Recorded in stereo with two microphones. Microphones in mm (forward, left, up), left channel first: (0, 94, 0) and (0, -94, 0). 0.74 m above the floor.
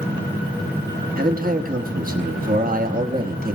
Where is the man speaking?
45° right (ahead or behind), 1.1 m.